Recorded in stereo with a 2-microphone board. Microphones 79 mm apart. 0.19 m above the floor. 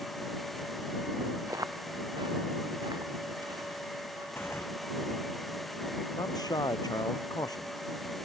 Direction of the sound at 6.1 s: 50° left (ahead or behind).